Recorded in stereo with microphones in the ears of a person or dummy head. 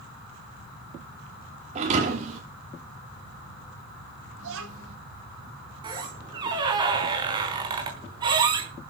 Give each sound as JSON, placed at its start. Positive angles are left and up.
{"t": 1.8, "sound": "a thud", "side_deg": -40, "distance_m": 6.5}
{"t": 4.4, "sound": "a child speaking", "side_deg": -85, "distance_m": 8.0}
{"t": 5.8, "sound": "a squeak", "side_deg": -25, "distance_m": 4.5}